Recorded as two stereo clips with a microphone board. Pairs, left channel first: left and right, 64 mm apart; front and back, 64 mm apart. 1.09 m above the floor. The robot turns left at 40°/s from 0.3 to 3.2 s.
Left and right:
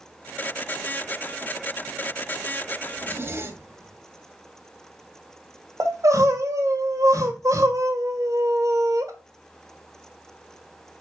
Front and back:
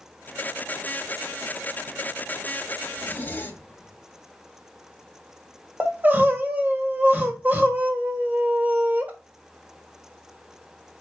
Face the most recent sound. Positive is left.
turn(degrees=-115)